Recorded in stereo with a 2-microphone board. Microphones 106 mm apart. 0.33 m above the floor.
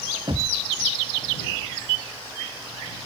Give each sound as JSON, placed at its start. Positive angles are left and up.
{"t": 0.3, "sound": "knocking", "side_deg": -55}